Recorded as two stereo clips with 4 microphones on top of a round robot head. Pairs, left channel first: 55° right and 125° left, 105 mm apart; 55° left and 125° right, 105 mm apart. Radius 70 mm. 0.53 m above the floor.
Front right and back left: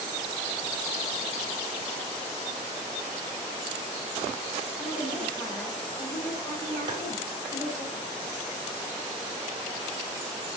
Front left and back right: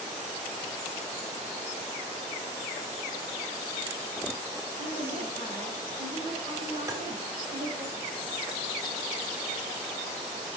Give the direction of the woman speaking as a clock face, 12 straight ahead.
4 o'clock.